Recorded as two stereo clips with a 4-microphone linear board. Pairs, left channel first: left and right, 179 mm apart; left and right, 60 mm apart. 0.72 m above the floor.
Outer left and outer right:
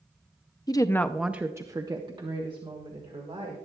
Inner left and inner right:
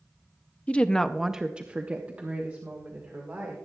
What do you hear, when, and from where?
0.7 s a woman speaking: 25° left (ahead or behind), 0.6 m; by 3.6 s 30° right (ahead or behind), 2 m